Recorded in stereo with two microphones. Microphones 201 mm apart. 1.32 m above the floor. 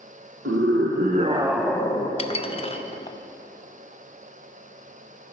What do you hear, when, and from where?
0.5 s a scream: 75° right (ahead or behind), 1.0 m; by 2.1 s 25° left (ahead or behind), 0.9 m
2.2 s dishes clattering: 30° left (ahead or behind), 0.5 m